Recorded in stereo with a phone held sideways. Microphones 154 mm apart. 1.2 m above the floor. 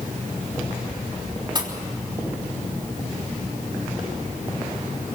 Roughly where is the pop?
Right.